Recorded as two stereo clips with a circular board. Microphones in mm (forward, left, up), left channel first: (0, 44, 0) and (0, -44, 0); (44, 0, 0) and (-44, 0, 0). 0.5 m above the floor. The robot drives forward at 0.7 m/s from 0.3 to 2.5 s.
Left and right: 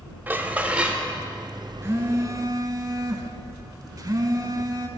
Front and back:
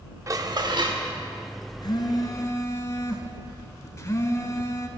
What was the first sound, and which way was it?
Dishes clattering, 150° right.